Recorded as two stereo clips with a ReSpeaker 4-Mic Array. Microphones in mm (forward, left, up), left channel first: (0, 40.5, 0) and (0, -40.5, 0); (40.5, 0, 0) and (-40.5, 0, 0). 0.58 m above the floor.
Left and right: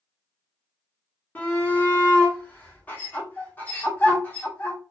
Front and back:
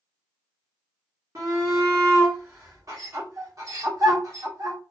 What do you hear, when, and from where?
1.4 s a shout: 150° left, 1.4 m